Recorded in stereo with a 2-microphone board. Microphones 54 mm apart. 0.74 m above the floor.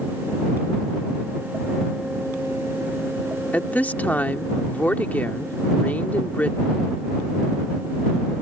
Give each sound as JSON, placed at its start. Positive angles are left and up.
{"t": 3.5, "sound": "a woman speaking", "side_deg": 30}